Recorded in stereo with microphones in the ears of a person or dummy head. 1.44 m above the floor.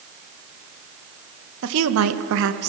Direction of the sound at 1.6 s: 70° right (ahead or behind).